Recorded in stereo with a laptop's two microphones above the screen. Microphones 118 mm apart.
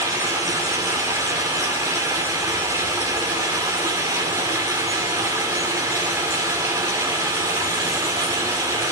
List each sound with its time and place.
0.0 s running water: 25° right (ahead or behind), 2 m